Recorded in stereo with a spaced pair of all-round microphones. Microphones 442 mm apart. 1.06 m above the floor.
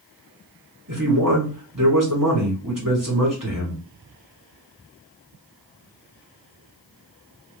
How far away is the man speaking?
About 1.8 m.